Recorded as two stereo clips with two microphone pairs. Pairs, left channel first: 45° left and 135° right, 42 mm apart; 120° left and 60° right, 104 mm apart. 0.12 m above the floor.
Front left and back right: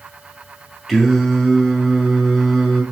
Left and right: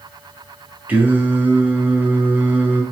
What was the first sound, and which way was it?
Singing, 45° right.